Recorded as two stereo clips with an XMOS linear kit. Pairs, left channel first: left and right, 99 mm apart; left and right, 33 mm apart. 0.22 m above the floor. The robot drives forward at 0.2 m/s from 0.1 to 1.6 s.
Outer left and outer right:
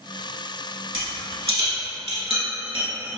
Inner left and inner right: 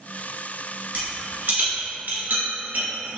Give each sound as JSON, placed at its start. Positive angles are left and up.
{"t": 0.9, "sound": "a rattle", "side_deg": -75, "distance_m": 1.4}